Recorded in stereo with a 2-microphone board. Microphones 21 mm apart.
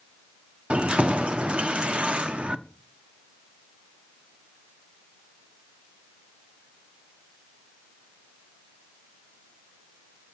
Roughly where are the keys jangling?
Right.